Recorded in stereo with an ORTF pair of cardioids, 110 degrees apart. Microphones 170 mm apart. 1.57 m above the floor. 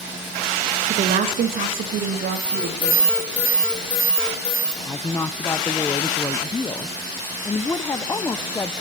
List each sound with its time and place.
0.8 s a woman speaking: 45° right, 2.5 m; by 3.1 s 75° right, 4 m
2.3 s an alarm: 10° left, 9 m
4.8 s a woman speaking: 15° left, 0.9 m